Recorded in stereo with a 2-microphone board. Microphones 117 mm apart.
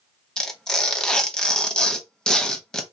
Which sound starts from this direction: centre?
Tearing paper, at 0.4 s.